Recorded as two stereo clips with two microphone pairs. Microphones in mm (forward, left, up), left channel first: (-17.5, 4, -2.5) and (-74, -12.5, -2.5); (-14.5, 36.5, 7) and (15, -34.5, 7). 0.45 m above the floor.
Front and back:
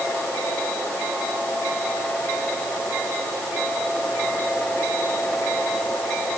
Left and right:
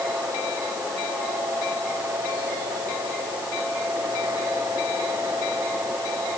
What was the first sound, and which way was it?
Only background noise.